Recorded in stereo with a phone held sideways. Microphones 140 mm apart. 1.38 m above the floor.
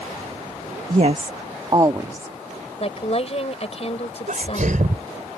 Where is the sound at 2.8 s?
45° left (ahead or behind).